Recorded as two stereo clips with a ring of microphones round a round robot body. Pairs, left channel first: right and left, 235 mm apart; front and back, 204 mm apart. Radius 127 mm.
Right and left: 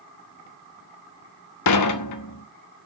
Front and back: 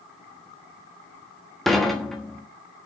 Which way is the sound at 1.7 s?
90° right.